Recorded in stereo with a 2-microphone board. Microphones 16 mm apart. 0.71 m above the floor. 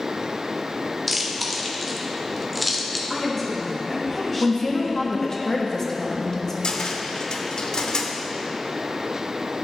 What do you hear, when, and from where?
1.1 s chewing: centre (ahead or behind), 0.9 m
3.1 s a woman speaking: 5° left (ahead or behind), 1.9 m
4.4 s a woman speaking: 30° left (ahead or behind), 1.0 m
6.6 s a cupboard door: 70° left (ahead or behind), 0.7 m